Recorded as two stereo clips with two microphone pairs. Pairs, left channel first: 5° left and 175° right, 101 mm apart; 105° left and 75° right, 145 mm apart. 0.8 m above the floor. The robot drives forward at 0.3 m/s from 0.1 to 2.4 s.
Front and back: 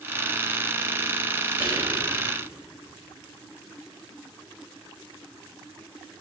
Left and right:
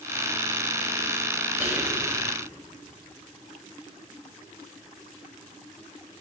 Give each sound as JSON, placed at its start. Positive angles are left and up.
{"t": 1.6, "sound": "whispering", "azimuth_deg": -150, "distance_m": 2.5}